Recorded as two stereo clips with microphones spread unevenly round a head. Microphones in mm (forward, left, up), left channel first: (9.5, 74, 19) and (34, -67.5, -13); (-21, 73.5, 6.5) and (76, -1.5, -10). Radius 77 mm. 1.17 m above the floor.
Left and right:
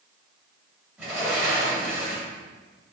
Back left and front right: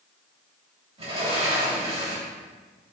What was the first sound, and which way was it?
A sliding door, straight ahead.